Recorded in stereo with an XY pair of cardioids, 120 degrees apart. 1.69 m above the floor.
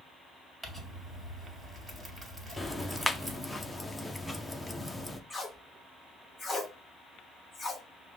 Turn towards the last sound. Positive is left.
turn(degrees=10)